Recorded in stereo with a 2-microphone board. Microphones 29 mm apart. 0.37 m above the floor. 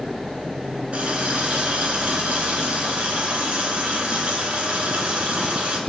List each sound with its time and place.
0.9 s a running tap: 50° right (ahead or behind), 3 m